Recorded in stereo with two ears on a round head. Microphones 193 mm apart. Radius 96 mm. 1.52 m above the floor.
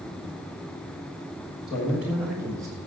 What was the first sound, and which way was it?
A man speaking, 20° left (ahead or behind).